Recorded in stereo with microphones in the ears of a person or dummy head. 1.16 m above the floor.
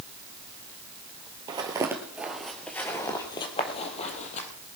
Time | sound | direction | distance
1.5 | footsteps | 25° right (ahead or behind) | 1.7 m